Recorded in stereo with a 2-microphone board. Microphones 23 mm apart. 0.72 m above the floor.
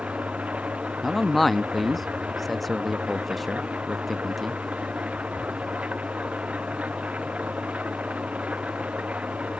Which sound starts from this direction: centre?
A man speaking, at 1.0 s.